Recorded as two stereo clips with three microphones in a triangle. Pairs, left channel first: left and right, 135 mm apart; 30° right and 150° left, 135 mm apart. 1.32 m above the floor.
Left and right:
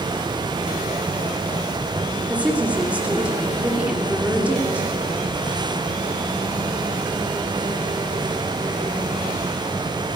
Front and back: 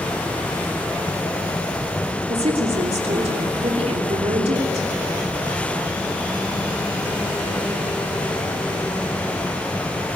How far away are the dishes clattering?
No dishes clattering in this recording.